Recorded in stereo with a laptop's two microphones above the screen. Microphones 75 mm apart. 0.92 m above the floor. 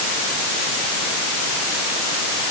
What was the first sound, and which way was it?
Only background noise.